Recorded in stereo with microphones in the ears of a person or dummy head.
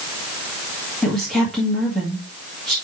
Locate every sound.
1.0 s a woman speaking: centre (ahead or behind), 2.0 m